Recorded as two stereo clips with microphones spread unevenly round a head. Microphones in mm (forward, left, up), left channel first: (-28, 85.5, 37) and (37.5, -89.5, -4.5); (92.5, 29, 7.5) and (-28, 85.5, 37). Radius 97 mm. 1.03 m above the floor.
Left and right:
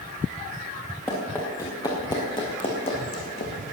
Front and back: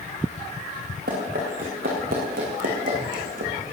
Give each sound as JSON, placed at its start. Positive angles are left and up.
{"t": 1.1, "sound": "running footsteps", "azimuth_deg": -175, "distance_m": 4.5}